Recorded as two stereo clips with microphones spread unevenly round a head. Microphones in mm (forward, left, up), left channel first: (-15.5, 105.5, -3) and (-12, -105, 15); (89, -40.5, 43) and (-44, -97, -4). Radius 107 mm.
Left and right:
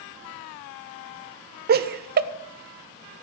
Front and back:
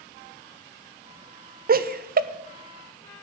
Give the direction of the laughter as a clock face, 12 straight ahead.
4 o'clock.